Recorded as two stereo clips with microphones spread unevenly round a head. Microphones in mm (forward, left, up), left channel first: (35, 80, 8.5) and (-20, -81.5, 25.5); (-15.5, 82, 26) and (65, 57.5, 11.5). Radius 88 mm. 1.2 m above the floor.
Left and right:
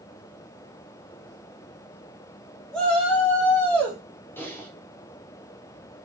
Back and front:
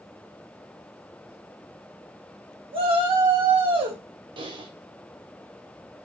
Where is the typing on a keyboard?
5° right, 2 m.